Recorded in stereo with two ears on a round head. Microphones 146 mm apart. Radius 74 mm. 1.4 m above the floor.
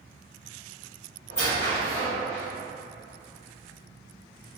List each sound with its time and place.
1.3 s a squeak: 40° left (ahead or behind), 1.7 m